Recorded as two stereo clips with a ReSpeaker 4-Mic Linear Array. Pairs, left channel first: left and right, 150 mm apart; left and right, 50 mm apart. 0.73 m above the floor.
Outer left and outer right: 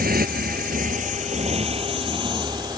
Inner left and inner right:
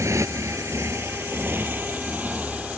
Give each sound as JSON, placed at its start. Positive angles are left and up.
{"t": 0.0, "sound": "a motorcycle", "side_deg": -85}